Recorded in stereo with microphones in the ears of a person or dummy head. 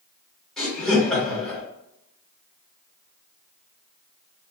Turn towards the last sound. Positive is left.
turn(degrees=10)  # may be behind; listen again after turning